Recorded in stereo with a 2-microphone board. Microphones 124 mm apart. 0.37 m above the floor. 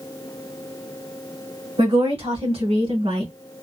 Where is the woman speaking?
60° right (ahead or behind), 2 m; by 3.3 s 55° right (ahead or behind), 2 m.